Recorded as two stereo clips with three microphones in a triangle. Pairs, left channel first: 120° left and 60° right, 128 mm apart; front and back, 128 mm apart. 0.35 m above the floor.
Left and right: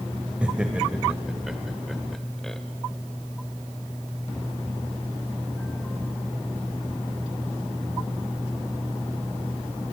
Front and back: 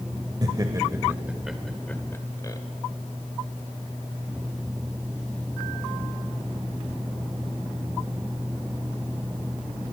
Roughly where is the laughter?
Behind right.